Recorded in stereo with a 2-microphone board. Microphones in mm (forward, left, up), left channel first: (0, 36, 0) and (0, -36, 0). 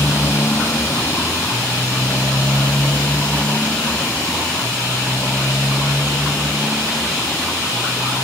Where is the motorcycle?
35° left (ahead or behind); by 8.2 s 5° left (ahead or behind).